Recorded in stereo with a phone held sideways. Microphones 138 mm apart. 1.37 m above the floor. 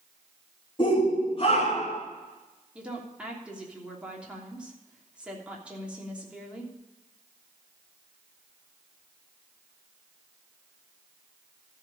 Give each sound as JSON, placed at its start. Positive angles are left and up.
{"t": 0.8, "sound": "a shout", "side_deg": 35, "distance_m": 3.0}
{"t": 2.8, "sound": "a woman speaking", "side_deg": -10, "distance_m": 3.0}